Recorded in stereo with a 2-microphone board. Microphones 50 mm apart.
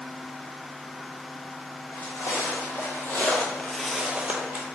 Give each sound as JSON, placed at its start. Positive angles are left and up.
{"t": 1.9, "sound": "footsteps", "side_deg": 70, "distance_m": 1.5}